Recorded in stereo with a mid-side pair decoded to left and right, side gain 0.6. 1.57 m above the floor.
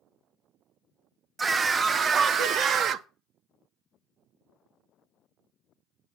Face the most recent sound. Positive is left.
turn(degrees=-60)